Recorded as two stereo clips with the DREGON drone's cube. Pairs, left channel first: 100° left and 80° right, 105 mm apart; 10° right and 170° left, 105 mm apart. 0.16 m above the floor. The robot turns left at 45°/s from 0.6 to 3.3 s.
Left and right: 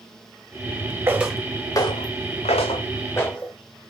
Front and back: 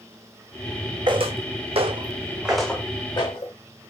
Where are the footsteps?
145° right, 0.8 m; by 3.5 s 20° left, 1.1 m.